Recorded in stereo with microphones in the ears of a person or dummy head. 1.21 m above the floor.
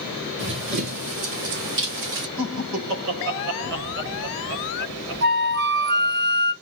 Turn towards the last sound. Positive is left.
turn(degrees=-55)  # may be behind; listen again after turning